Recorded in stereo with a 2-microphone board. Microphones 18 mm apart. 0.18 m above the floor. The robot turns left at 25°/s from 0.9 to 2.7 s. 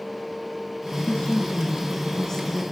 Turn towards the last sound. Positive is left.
turn(degrees=15)